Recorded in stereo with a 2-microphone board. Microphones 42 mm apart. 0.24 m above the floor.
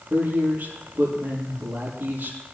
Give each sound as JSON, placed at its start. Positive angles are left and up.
{"t": 0.1, "sound": "a man speaking", "side_deg": -40, "distance_m": 6.0}